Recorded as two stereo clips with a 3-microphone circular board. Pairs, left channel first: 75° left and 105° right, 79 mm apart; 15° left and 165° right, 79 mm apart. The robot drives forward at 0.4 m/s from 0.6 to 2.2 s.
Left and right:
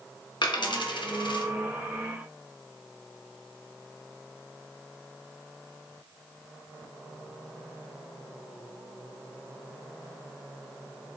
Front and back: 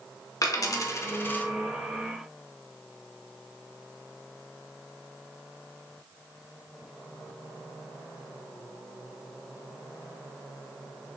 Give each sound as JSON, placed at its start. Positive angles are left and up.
{"t": 0.4, "sound": "a dropped coin", "azimuth_deg": 60, "distance_m": 0.8}